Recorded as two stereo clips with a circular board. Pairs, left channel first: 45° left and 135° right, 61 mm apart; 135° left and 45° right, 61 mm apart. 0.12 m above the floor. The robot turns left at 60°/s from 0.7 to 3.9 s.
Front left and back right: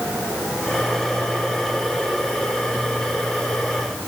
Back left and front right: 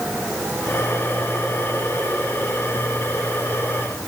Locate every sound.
Only background noise.